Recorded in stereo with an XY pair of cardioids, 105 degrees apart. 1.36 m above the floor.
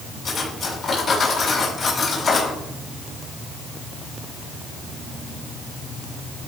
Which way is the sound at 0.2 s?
30° left.